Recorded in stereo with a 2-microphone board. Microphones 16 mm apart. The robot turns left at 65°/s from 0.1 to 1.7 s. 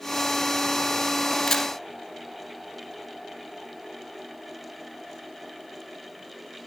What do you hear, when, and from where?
1.5 s a camera shutter: 15° left (ahead or behind), 2.5 m; by 1.7 s centre (ahead or behind), 2.5 m